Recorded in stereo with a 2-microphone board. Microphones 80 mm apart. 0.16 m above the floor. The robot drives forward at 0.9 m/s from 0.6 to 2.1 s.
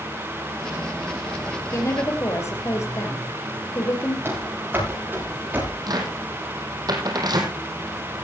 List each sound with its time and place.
1.7 s a woman speaking: 40° left (ahead or behind), 4 m; by 4.2 s 35° left (ahead or behind), 4 m
4.2 s running footsteps: 30° right (ahead or behind), 10 m; by 5.8 s 20° right (ahead or behind), 10 m
5.9 s a cupboard door: 60° right (ahead or behind), 3 m